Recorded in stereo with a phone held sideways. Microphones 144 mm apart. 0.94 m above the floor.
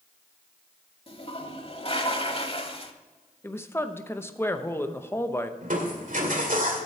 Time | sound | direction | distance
1.1 | a toilet flushing | 45° left (ahead or behind) | 0.9 m
3.4 | a woman speaking | 15° left (ahead or behind) | 0.8 m
5.6 | crushing | 70° right (ahead or behind) | 2 m